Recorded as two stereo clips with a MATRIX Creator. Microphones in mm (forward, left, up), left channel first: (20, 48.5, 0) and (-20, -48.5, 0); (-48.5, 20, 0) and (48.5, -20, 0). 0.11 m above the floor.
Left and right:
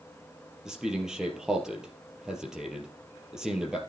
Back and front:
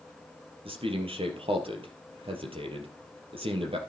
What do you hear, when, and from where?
0.7 s a man speaking: 25° right, 3.5 m